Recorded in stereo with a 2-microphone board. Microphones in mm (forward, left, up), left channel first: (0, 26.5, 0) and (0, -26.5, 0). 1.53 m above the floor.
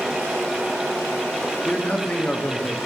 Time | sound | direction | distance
1.6 | a man speaking | 20° left (ahead or behind) | 0.7 m